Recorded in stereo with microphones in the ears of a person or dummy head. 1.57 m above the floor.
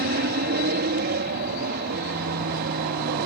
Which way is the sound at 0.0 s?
55° right (ahead or behind).